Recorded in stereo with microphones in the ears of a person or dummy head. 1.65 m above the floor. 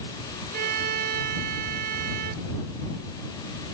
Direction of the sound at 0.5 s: 50° right (ahead or behind).